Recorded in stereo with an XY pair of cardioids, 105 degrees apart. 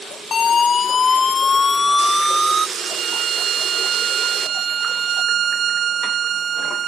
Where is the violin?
65° right.